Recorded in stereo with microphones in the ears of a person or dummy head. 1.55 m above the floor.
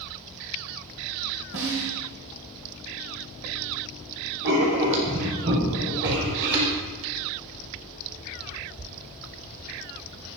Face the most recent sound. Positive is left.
turn(degrees=-65)  # may be behind; listen again after turning